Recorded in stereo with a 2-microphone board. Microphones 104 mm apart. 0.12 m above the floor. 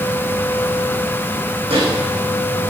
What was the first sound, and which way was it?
A microwave, 65° right (ahead or behind).